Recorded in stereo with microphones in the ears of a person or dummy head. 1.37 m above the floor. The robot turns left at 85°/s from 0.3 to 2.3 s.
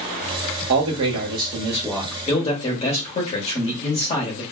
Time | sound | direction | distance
0.7 | a man speaking | 75° right | 1.3 m